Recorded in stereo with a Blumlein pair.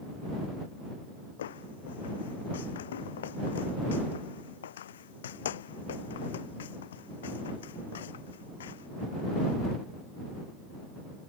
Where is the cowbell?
No cowbell in this recording.